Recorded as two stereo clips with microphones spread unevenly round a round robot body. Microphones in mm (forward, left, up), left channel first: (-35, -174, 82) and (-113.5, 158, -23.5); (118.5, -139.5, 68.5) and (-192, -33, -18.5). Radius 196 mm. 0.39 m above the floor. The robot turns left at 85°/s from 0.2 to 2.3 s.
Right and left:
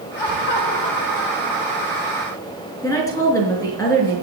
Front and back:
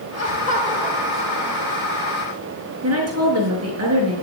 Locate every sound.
0.2 s laughter: 65° right, 2.5 m; by 2.1 s 135° left, 2.5 m
2.8 s a woman speaking: 160° right, 6 m